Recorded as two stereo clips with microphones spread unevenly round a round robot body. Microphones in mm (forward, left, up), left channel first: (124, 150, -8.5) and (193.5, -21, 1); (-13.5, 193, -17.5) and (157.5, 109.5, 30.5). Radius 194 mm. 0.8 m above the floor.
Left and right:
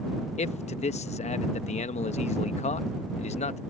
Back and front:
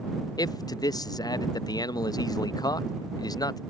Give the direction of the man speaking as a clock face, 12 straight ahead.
8 o'clock.